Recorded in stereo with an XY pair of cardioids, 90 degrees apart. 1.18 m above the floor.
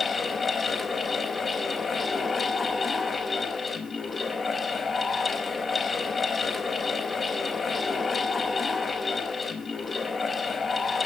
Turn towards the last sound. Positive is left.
turn(degrees=40)